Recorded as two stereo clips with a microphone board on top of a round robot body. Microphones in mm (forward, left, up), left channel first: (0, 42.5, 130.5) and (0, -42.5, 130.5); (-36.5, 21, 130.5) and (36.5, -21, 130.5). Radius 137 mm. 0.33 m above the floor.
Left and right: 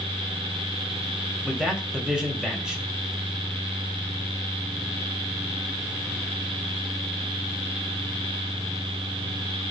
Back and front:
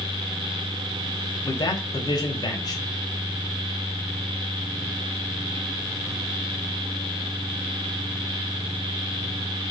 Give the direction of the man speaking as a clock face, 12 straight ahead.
6 o'clock.